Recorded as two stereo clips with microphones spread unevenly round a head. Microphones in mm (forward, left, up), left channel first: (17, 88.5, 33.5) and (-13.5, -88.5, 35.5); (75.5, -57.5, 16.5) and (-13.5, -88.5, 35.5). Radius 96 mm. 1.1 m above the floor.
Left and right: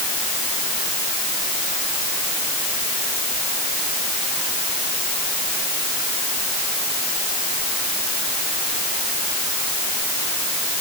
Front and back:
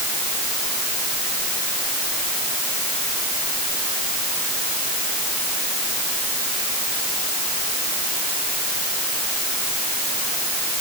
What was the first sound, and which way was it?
Only background noise.